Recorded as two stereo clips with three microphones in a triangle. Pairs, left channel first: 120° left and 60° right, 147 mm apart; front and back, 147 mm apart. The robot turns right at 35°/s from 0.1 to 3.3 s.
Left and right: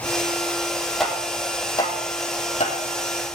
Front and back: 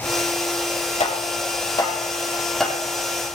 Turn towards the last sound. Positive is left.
turn(degrees=110)